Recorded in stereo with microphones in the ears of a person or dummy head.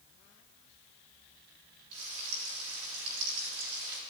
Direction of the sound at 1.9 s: 80° right.